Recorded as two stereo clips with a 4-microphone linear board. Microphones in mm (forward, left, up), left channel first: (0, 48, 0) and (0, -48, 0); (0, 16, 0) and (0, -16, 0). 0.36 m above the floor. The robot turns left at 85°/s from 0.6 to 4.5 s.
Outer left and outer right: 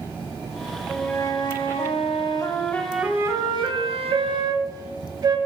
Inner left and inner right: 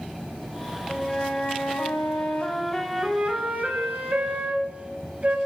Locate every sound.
0.9 s a flute: 175° left, 0.6 m; by 5.4 s 135° right, 0.6 m